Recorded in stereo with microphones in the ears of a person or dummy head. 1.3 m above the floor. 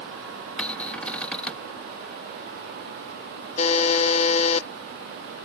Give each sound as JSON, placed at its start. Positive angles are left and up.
{"t": 0.6, "sound": "a cupboard door", "side_deg": 5}
{"t": 3.6, "sound": "a buzzer", "side_deg": 35}